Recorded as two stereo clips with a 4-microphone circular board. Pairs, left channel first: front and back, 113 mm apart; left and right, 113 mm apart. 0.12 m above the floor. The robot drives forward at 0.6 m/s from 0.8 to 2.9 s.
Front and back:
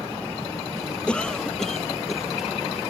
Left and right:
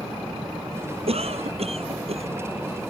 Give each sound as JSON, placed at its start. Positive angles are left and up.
{"t": 1.1, "sound": "a cough", "azimuth_deg": -80}